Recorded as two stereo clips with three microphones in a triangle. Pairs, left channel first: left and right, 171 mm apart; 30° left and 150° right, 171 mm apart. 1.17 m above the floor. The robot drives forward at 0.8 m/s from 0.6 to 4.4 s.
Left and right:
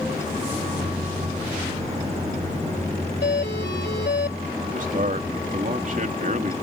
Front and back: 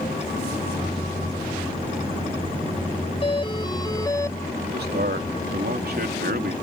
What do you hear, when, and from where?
3.2 s a doorbell: 85° left; by 4.4 s 105° left
4.6 s a man speaking: 130° right